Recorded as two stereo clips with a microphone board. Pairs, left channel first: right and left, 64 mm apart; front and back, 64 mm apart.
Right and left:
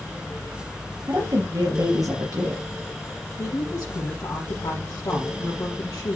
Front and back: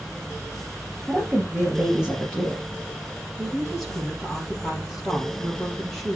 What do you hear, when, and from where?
1.1 s a woman speaking: 105° left, 5 m
3.4 s a woman speaking: 85° right, 3 m